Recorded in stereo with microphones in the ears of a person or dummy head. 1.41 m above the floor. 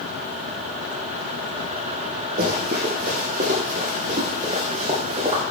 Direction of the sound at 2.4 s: 50° right (ahead or behind).